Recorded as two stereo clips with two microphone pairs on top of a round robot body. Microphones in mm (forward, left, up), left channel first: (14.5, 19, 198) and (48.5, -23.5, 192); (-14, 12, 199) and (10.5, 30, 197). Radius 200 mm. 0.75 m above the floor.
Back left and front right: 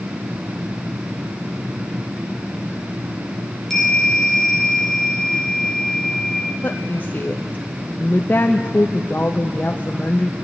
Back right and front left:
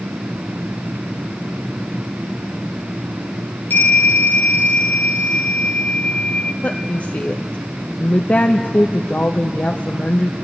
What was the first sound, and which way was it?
A bell, 145° right.